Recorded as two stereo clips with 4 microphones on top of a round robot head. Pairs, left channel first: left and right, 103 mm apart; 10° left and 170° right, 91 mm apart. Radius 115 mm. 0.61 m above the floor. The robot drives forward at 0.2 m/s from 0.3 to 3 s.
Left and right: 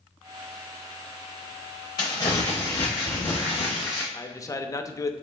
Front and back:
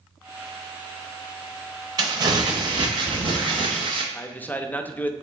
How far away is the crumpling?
About 0.5 m.